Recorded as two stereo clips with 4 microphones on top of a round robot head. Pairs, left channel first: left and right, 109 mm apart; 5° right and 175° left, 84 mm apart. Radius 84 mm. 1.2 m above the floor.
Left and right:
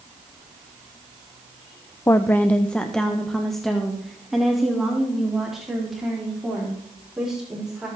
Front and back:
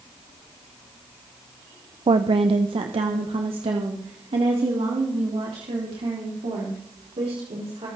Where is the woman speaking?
155° left, 0.7 m; by 7.9 s 175° right, 4.5 m.